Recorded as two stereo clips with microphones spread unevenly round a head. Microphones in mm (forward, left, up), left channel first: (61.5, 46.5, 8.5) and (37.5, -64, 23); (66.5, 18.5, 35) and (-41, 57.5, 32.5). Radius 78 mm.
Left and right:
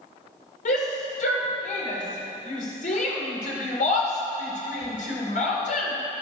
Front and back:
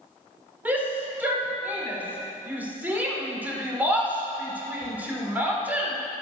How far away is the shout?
About 4 m.